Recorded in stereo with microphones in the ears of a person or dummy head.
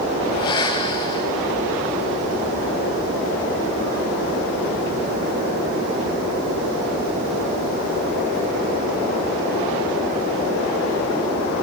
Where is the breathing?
25° left (ahead or behind), 0.6 m.